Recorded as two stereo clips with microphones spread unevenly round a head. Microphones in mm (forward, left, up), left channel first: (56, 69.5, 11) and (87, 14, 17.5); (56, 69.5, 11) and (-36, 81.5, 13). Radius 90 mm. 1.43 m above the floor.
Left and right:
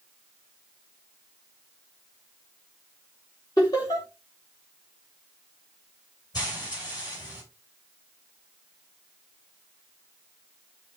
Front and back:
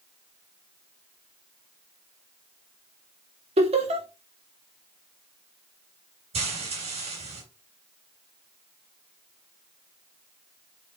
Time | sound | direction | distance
3.6 | laughter | straight behind | 2.5 m
6.3 | frying | straight behind | 4 m